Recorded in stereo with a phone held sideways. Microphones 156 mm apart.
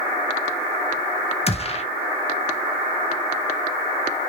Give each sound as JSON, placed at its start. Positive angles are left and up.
{"t": 1.5, "sound": "a gunshot", "side_deg": 40, "distance_m": 1.0}